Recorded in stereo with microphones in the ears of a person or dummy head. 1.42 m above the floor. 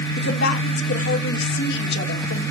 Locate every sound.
0.2 s a woman speaking: 65° left (ahead or behind), 2 m